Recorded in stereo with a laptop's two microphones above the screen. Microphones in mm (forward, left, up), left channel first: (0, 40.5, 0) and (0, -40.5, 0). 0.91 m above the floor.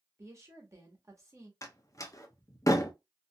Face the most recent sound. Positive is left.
turn(degrees=40)  # may be behind; listen again after turning